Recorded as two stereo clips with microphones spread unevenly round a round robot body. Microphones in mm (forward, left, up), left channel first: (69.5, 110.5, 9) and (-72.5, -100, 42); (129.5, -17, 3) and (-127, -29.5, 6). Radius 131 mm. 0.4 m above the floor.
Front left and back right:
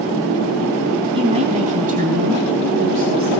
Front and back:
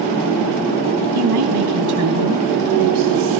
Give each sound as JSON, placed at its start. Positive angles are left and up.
{"t": 1.1, "sound": "a woman speaking", "azimuth_deg": 165, "distance_m": 4.0}